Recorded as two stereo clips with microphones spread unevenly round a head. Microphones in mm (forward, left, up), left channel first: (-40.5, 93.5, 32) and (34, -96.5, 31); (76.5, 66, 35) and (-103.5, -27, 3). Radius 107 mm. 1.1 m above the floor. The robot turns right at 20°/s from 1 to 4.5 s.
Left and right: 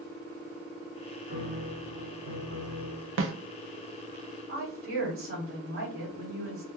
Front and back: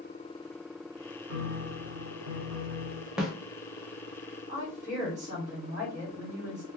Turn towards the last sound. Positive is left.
turn(degrees=-95)